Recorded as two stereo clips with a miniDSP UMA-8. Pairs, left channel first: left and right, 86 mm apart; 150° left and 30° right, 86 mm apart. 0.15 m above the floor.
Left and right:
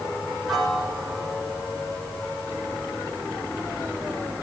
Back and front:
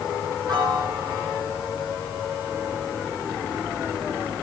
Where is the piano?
Straight ahead, 3 m.